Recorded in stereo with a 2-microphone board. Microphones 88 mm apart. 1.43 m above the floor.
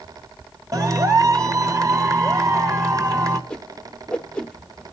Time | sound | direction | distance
0.7 | a clap | 40° right (ahead or behind) | 1.5 m
3.5 | a whoosh | 10° left (ahead or behind) | 1.0 m